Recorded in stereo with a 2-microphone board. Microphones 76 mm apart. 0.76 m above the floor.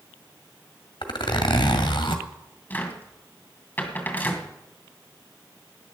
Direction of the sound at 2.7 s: 20° left (ahead or behind).